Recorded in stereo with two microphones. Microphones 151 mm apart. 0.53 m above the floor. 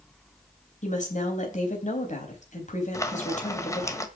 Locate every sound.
0.8 s a woman speaking: 55° left (ahead or behind), 4 m
2.9 s frying: 20° left (ahead or behind), 1.3 m